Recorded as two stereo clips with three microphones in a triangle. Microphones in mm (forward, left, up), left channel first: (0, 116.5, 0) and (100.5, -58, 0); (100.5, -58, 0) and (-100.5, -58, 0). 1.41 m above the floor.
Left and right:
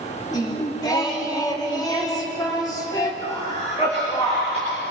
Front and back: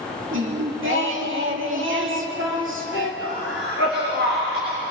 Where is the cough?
Straight behind, 4.5 m.